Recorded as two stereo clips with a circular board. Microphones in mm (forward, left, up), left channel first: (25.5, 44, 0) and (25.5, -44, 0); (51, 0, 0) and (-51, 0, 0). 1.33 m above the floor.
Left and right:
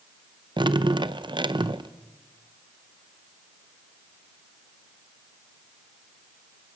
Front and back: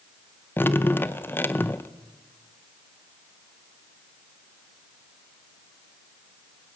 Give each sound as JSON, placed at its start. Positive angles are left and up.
{"t": 0.6, "sound": "dripping", "azimuth_deg": -70, "distance_m": 0.6}